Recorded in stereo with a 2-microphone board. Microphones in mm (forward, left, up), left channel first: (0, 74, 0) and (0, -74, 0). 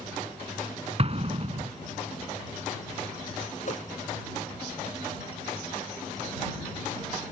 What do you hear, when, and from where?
1.0 s an explosion: 45° right (ahead or behind)
3.6 s a whoosh: 55° left (ahead or behind)